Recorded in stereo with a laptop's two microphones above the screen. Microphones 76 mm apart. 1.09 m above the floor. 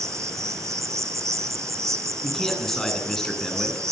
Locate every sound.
0.0 s an insect: 45° right (ahead or behind), 3 m
2.2 s a man speaking: 5° left (ahead or behind), 9.5 m